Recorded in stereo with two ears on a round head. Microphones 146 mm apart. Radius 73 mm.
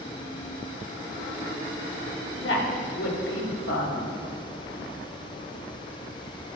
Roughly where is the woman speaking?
Left.